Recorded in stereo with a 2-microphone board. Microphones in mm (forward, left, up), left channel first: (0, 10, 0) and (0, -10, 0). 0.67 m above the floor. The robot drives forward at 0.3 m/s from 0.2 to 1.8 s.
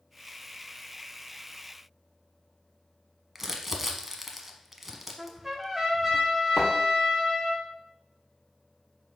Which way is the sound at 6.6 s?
40° left (ahead or behind).